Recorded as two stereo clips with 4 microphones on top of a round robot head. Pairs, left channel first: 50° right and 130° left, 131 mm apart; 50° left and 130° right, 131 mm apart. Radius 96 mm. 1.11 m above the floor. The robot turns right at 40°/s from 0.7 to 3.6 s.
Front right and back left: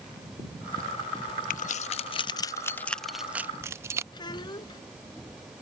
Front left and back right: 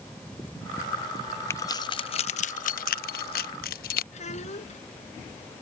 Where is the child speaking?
10° left.